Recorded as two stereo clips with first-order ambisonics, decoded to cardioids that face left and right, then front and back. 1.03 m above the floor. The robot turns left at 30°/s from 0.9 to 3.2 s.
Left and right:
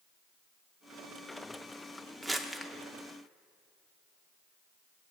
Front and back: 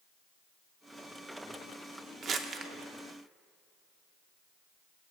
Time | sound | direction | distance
2.2 | crumpling | 170° right | 0.6 m